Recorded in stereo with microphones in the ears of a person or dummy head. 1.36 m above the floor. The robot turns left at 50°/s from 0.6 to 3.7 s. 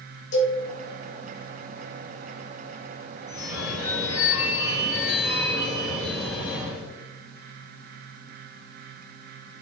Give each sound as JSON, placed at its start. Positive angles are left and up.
{"t": 0.3, "sound": "a cowbell", "side_deg": 75, "distance_m": 2.0}
{"t": 3.3, "sound": "a phone ringing", "side_deg": -15, "distance_m": 1.6}